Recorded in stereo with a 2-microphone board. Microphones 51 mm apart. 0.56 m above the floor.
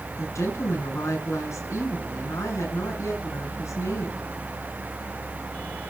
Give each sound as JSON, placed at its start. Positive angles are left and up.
{"t": 0.2, "sound": "a woman speaking", "side_deg": 75, "distance_m": 6.5}